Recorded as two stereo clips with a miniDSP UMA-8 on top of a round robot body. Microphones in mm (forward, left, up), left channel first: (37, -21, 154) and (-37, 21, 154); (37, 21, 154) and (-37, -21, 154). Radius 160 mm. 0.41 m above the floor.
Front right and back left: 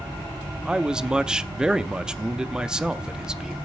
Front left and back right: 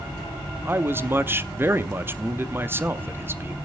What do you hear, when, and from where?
0.7 s a man speaking: 140° right, 0.9 m